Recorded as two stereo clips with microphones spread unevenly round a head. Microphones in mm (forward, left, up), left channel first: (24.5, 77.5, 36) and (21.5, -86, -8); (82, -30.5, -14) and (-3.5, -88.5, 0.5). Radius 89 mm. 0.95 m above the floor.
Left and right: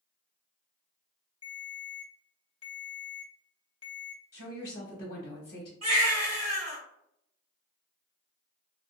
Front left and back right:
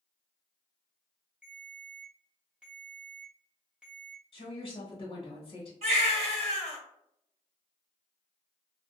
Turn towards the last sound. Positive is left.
turn(degrees=-155)